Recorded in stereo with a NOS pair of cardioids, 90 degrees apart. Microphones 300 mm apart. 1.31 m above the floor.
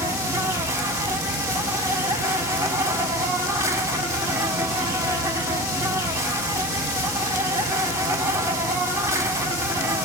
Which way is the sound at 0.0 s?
10° right.